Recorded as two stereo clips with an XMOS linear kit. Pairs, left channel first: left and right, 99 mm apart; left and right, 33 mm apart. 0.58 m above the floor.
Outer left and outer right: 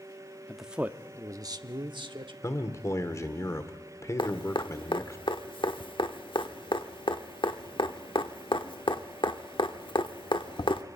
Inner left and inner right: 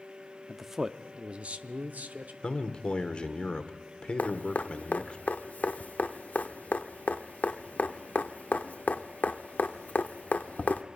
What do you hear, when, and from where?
0.5 s a man speaking: centre (ahead or behind), 0.7 m; by 2.3 s 60° right (ahead or behind), 1.4 m
2.4 s a man speaking: 30° left (ahead or behind), 1.5 m
4.2 s dripping: 60° left (ahead or behind), 0.9 m